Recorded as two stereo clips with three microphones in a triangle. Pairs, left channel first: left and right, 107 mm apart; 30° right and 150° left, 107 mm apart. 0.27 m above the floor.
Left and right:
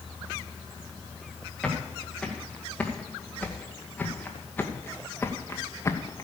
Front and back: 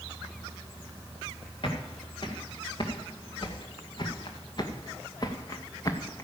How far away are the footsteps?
About 4 m.